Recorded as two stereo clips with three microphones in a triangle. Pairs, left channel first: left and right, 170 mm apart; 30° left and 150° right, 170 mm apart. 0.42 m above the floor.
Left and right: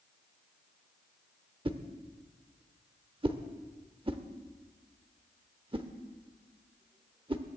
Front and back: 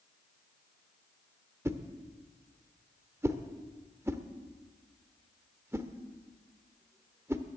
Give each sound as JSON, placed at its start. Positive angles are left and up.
{"t": 1.6, "sound": "a whoosh", "azimuth_deg": -90, "distance_m": 0.9}